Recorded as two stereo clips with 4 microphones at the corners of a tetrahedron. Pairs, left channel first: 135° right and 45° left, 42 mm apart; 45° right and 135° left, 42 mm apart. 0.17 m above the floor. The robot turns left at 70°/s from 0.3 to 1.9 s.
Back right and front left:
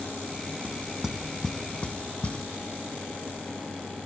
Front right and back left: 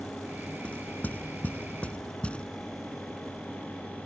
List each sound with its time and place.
0.6 s knocking: straight ahead; by 2.5 s 90° right